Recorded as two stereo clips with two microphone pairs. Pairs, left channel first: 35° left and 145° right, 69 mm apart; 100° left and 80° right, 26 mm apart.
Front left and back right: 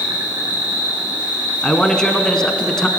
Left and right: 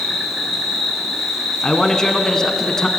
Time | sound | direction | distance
0.0 | an insect | 155° right | 2.5 m
1.6 | a man speaking | 105° left | 1.1 m